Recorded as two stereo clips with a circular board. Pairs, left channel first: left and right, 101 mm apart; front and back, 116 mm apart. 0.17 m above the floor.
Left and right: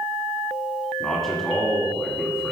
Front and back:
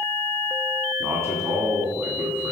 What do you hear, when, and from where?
1.0 s a man speaking: 175° left, 1.7 m